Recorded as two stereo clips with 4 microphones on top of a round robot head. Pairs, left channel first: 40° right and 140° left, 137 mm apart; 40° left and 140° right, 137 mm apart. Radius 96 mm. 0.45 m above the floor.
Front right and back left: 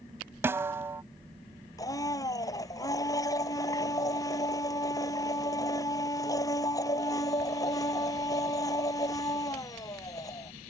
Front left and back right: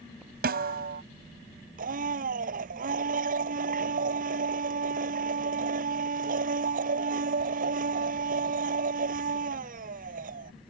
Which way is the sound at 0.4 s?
150° right.